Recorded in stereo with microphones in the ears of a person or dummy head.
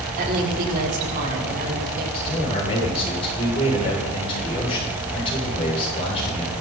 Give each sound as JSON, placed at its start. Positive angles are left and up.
{"t": 0.2, "sound": "a woman speaking", "side_deg": -50, "distance_m": 4.0}
{"t": 2.1, "sound": "a man speaking", "side_deg": 30, "distance_m": 7.5}